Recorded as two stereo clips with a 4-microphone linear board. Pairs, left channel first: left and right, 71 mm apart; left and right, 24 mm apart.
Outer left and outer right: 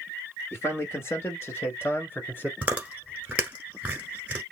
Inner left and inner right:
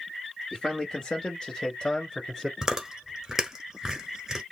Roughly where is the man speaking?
Left.